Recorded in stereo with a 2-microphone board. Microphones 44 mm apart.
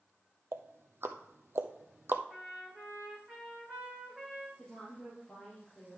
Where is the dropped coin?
No dropped coin in this recording.